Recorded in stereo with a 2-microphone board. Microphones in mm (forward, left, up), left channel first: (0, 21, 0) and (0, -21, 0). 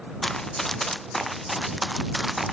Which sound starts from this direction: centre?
Running footsteps, at 0.2 s.